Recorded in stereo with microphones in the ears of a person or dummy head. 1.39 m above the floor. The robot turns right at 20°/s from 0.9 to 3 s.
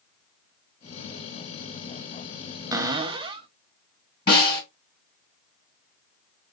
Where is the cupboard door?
20° right (ahead or behind), 0.5 m; by 3.5 s 25° right (ahead or behind), 0.5 m.